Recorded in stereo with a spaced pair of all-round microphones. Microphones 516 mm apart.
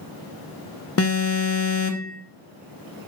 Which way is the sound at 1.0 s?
30° left (ahead or behind).